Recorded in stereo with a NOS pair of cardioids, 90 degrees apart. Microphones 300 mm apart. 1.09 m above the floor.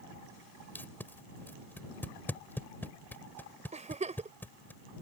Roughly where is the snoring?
No snoring in this recording.